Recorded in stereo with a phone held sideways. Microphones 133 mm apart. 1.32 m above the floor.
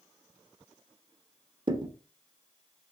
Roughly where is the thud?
Right.